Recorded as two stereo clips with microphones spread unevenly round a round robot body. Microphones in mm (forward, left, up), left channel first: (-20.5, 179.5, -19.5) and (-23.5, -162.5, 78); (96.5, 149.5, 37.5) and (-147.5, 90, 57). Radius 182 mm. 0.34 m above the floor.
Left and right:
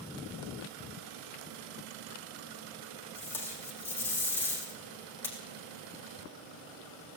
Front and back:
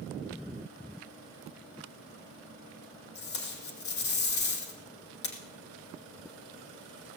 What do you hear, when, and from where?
3.1 s tape being pulled: 5° left, 3 m